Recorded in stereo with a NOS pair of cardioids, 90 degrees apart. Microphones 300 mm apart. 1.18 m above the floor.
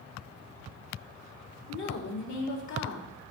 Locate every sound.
1.7 s a woman speaking: 70° left, 3 m